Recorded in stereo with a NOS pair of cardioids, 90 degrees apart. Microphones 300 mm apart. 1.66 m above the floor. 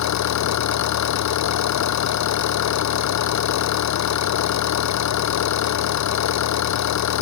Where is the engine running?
65° left.